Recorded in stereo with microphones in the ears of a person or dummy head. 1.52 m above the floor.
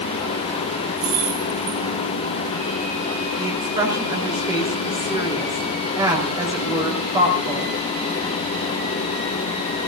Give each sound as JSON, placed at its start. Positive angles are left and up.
{"t": 1.0, "sound": "keys jangling", "side_deg": -85, "distance_m": 7.0}
{"t": 3.4, "sound": "a woman speaking", "side_deg": -20, "distance_m": 5.0}